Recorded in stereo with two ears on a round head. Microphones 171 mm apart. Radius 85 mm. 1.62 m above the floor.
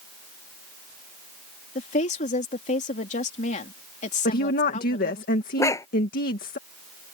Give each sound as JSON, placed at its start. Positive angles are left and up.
{"t": 1.8, "sound": "a woman speaking", "side_deg": 40}
{"t": 4.2, "sound": "a woman speaking", "side_deg": 50}
{"t": 5.6, "sound": "a dog barking", "side_deg": 15}